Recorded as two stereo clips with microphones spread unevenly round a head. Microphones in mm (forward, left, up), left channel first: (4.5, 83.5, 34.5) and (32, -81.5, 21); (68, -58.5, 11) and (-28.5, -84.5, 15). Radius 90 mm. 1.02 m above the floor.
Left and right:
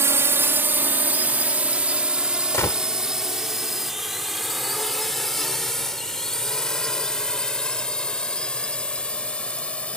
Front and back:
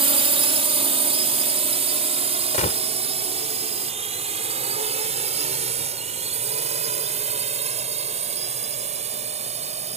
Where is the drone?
155° right; by 10.0 s 175° right.